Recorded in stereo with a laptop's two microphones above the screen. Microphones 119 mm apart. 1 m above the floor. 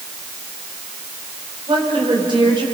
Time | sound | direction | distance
1.7 | a woman speaking | 40° right (ahead or behind) | 4.5 m